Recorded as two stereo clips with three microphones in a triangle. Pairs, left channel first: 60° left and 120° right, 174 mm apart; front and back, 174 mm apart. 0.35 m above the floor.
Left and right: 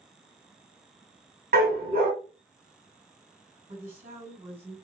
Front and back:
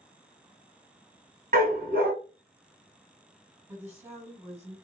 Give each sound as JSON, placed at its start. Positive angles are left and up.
{"t": 1.5, "sound": "a dog barking", "azimuth_deg": -150, "distance_m": 0.9}
{"t": 3.7, "sound": "a woman speaking", "azimuth_deg": -110, "distance_m": 2.0}